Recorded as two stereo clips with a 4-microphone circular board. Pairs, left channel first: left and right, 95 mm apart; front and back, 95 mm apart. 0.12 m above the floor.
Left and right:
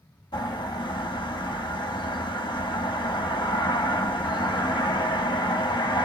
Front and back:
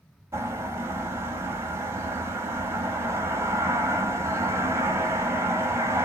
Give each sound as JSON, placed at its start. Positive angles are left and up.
{"t": 0.3, "sound": "a bird", "azimuth_deg": 125, "distance_m": 0.8}